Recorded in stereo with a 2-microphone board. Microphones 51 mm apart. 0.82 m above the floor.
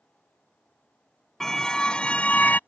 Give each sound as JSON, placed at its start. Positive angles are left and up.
{"t": 1.4, "sound": "a car horn", "side_deg": 10}